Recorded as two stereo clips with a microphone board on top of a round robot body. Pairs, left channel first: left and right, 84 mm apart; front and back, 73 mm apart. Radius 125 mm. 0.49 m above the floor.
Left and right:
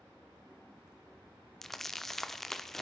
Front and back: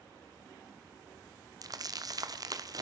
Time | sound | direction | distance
1.6 | crumpling | 175° left | 1.6 m